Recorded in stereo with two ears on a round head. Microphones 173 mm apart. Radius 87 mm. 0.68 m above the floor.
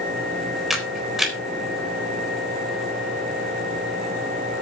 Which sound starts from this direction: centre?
A camera shutter, at 0.7 s.